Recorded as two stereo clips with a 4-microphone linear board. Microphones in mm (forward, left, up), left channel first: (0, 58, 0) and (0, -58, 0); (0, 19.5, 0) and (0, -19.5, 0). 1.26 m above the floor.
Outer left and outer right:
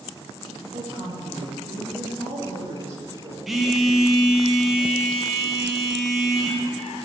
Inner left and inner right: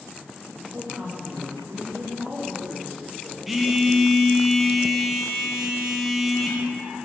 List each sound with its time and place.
0.7 s a woman speaking: 75° right (ahead or behind), 1.6 m
3.5 s a phone buzzing: centre (ahead or behind), 0.6 m